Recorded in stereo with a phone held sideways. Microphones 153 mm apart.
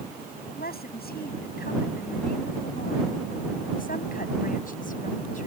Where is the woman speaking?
90° left; by 5.5 s 55° left (ahead or behind).